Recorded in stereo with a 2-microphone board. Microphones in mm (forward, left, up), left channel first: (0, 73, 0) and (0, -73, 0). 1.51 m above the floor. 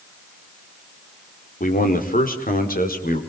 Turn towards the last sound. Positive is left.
turn(degrees=85)